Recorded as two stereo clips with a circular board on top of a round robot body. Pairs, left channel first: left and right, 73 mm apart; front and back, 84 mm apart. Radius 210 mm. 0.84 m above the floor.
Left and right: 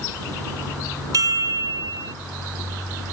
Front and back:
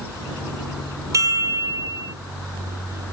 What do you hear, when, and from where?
1.1 s a chime: 130° right